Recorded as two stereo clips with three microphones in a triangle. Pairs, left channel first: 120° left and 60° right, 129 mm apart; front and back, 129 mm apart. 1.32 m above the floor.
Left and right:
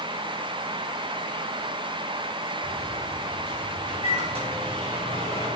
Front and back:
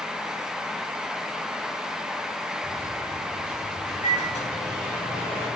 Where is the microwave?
25° right, 3.5 m.